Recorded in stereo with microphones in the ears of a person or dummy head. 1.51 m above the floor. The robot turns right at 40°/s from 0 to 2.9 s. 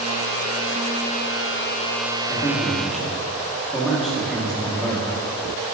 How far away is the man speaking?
About 1.3 m.